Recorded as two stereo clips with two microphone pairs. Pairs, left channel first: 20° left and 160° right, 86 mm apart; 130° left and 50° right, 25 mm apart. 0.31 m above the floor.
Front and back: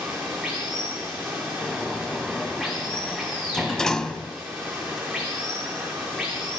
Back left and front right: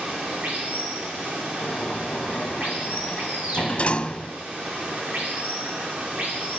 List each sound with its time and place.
0.0 s running water: 75° right, 9.5 m
1.6 s a sliding door: 100° left, 1.1 m